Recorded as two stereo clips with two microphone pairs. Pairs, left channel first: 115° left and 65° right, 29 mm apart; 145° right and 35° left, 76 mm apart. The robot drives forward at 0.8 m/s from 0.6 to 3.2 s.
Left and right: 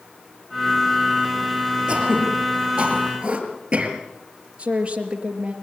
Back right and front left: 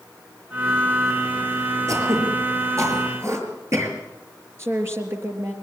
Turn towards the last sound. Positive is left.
turn(degrees=-15)